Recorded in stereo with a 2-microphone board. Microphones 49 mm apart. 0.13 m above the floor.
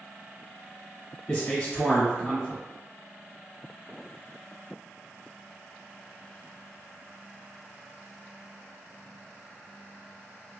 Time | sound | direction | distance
1.3 | a man speaking | 15° left (ahead or behind) | 1.4 m